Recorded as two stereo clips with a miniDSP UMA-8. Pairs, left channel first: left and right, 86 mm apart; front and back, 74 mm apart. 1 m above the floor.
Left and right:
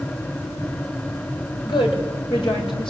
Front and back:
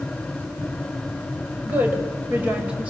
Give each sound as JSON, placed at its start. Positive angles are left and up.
{"t": 1.6, "sound": "a woman speaking", "azimuth_deg": 115, "distance_m": 5.5}